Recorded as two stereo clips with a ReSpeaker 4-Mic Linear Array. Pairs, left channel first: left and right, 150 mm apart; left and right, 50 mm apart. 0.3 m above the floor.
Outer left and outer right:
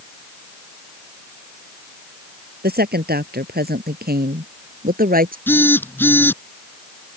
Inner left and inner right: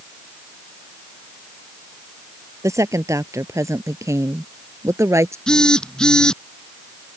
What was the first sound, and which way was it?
A woman speaking, 80° right.